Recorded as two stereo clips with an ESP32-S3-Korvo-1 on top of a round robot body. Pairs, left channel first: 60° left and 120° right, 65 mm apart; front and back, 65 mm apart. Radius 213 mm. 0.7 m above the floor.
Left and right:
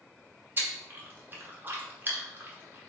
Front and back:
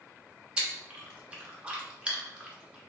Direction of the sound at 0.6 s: 120° right.